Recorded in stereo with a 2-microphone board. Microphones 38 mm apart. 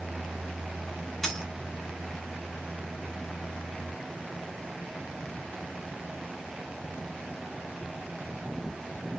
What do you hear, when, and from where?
1.2 s a dropped coin: 15° left (ahead or behind), 1.7 m